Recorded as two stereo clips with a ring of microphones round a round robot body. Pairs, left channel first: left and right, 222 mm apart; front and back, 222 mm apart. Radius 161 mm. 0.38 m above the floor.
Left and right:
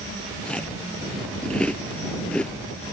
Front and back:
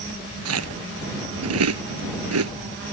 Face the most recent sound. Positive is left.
turn(degrees=175)